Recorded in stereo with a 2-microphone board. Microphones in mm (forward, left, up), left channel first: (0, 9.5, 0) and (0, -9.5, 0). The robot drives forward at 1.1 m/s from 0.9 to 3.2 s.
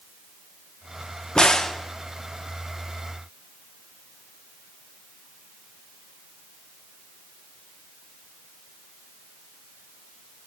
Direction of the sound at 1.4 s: 50° left (ahead or behind).